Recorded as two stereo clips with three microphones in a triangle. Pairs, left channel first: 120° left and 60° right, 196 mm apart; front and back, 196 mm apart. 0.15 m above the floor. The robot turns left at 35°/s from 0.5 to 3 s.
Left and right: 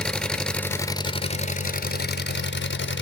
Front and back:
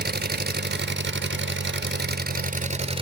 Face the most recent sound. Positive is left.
turn(degrees=120)